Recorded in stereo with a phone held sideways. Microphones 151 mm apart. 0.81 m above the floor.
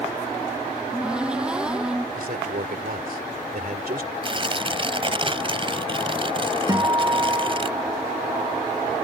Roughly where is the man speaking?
Right.